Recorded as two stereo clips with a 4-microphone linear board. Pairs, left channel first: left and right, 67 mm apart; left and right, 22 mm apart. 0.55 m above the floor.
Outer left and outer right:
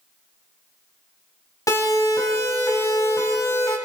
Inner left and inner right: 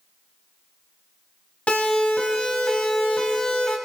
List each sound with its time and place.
1.7 s a siren: 70° left (ahead or behind), 5.5 m; by 3.8 s 60° left (ahead or behind), 4.5 m